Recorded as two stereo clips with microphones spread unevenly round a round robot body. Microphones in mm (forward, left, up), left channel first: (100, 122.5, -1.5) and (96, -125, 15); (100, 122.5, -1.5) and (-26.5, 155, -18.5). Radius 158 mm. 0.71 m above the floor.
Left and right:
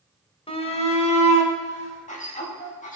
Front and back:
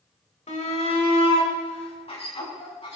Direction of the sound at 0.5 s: 20° left.